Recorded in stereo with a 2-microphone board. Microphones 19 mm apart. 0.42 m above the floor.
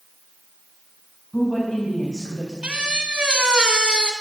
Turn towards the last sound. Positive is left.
turn(degrees=-75)  # may be behind; listen again after turning